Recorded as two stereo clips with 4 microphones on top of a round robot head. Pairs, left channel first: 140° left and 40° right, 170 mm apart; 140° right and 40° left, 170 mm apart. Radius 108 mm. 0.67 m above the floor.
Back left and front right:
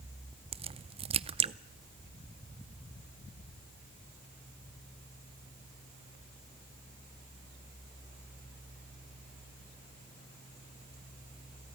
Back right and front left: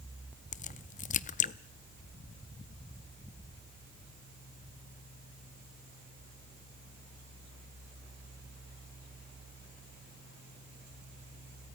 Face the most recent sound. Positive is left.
turn(degrees=-95)